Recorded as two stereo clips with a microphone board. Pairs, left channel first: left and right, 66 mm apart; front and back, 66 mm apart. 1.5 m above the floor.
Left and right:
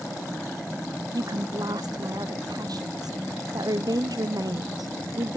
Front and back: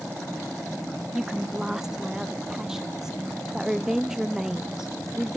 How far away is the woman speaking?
About 0.7 m.